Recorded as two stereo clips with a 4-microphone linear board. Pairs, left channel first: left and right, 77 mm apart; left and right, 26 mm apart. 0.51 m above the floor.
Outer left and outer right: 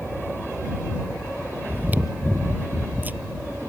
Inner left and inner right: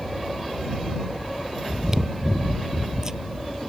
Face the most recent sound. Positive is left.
turn(degrees=-25)  # may be behind; listen again after turning